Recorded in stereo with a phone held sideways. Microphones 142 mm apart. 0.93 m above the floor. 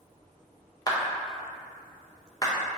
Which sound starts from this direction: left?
A clap, at 0.9 s.